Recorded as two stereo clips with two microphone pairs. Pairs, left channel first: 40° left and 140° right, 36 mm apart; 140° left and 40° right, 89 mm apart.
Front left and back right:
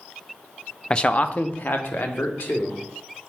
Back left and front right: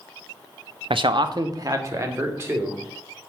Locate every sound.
0.9 s a man speaking: 25° right, 0.8 m; by 2.8 s 25° left, 2.5 m